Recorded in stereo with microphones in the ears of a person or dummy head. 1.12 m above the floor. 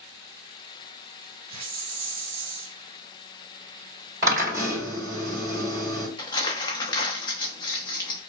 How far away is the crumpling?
About 0.9 m.